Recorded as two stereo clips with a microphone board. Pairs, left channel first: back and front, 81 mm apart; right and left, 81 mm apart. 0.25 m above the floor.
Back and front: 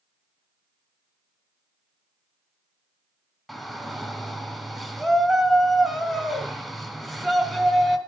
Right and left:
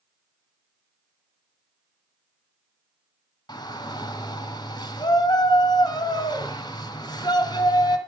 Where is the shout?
90° right, 2.5 m.